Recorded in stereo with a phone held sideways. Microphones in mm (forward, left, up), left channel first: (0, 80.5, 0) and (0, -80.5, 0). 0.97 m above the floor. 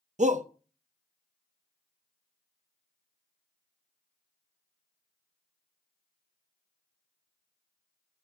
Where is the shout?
50° right (ahead or behind), 0.7 m.